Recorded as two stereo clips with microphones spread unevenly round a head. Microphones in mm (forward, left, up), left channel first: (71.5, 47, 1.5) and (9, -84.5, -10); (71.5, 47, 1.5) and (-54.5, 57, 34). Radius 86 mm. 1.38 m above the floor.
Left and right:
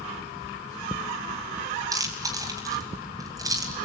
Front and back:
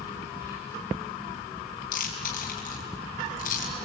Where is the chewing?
50° right, 4.5 m.